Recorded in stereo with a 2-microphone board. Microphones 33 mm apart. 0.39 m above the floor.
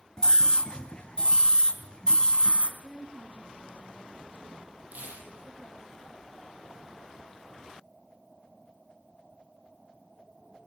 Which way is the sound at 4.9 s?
60° right (ahead or behind).